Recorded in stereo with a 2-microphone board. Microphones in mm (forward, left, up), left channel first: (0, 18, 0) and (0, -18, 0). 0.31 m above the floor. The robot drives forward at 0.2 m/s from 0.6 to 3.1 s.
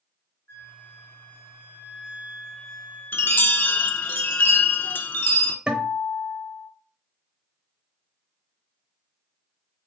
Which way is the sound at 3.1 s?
75° left (ahead or behind).